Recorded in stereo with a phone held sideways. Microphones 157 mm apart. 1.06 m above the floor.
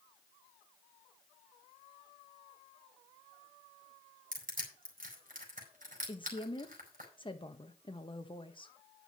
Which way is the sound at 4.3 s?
60° right (ahead or behind).